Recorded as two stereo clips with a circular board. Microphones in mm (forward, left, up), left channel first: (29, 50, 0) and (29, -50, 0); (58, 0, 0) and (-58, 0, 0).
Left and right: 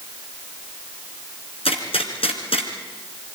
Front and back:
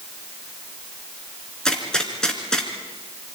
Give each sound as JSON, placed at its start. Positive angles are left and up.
{"t": 1.6, "sound": "a gunshot", "azimuth_deg": 85, "distance_m": 3.5}